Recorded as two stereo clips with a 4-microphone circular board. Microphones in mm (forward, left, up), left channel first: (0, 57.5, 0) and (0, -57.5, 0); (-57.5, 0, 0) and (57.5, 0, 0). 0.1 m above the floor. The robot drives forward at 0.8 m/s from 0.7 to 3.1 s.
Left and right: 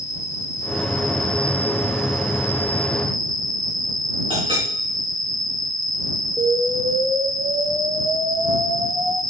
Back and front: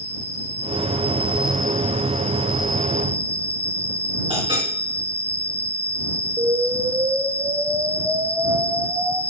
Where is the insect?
25° left, 1.3 m; by 9.3 s 140° left, 1.0 m.